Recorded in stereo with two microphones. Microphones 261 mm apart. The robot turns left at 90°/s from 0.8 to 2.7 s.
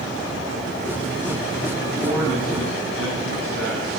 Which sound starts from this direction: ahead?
A man speaking, at 2.0 s.